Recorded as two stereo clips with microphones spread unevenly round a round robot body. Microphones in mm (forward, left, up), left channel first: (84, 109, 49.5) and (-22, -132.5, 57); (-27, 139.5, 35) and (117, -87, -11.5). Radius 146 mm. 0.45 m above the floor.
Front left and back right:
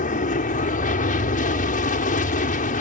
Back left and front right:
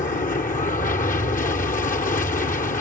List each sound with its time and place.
0.0 s an aircraft: 75° left